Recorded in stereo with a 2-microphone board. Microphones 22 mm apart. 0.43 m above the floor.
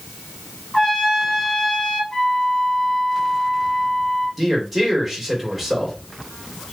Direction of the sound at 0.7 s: 30° left (ahead or behind).